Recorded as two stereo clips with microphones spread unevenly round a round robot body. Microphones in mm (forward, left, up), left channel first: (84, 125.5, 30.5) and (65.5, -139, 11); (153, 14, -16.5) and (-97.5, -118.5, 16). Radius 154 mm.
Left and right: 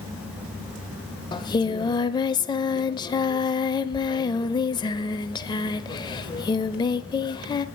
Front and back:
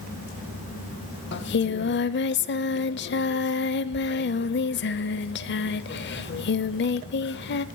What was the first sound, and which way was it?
Singing, 35° left.